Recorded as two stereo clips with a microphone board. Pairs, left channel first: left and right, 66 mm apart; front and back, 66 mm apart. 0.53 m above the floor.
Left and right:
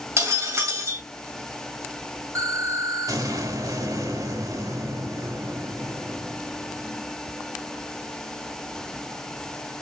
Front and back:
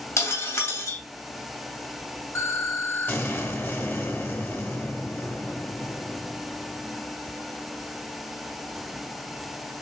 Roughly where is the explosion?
Ahead right.